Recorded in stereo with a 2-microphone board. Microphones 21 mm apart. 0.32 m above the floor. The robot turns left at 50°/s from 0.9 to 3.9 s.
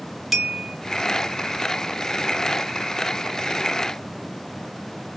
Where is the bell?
10° right (ahead or behind), 0.8 m.